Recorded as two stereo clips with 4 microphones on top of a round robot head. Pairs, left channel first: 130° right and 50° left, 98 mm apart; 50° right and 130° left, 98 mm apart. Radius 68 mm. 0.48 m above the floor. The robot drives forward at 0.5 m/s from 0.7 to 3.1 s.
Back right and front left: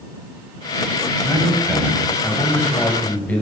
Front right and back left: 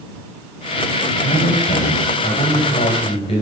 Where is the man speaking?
40° right, 2.5 m; by 3.4 s 55° right, 2 m.